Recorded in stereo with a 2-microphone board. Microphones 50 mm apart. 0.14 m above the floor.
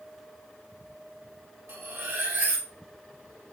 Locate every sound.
1.7 s cutlery clinking: 50° right (ahead or behind), 1.3 m